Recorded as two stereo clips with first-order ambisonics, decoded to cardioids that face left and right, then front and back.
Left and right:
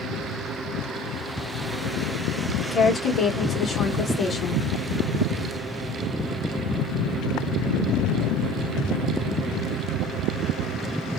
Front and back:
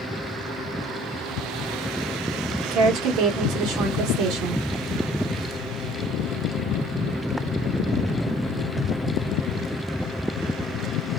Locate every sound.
2.6 s a woman speaking: 150° left, 1.2 m